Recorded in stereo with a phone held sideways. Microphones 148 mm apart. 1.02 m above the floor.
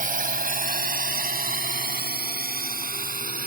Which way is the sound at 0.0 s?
65° right (ahead or behind).